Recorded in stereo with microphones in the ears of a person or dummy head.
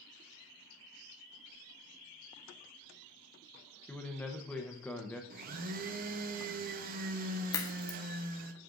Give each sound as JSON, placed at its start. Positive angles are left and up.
{"t": 3.9, "sound": "a man speaking", "side_deg": 10, "distance_m": 0.8}
{"t": 5.3, "sound": "a blender", "side_deg": -45, "distance_m": 0.6}
{"t": 7.5, "sound": "a crack", "side_deg": 15, "distance_m": 1.0}